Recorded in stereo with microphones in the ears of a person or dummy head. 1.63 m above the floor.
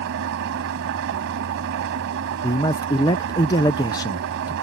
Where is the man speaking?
20° left (ahead or behind).